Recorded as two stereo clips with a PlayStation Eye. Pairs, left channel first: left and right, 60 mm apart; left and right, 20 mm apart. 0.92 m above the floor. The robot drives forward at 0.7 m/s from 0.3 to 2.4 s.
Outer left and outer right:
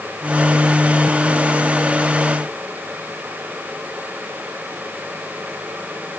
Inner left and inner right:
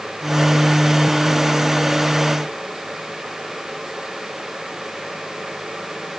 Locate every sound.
Only background noise.